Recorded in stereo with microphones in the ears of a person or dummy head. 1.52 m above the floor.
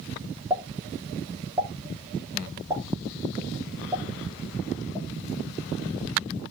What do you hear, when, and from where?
0.5 s a pop: 20° right (ahead or behind), 3 m